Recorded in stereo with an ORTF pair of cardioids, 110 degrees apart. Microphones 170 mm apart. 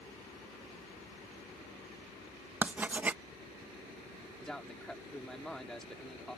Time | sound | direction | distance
2.6 | writing | 10° right | ?
4.4 | a man speaking | 5° left | ?